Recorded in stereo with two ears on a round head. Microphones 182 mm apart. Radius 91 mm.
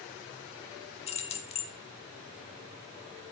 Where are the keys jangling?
30° left (ahead or behind), 1.0 m.